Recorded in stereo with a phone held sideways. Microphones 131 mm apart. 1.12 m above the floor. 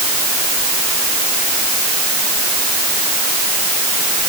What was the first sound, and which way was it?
Only background noise.